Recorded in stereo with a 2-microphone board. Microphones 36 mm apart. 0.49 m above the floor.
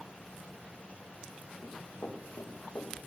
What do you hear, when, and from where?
1.6 s running footsteps: 65° left (ahead or behind), 6 m; by 2.9 s 75° left (ahead or behind), 5 m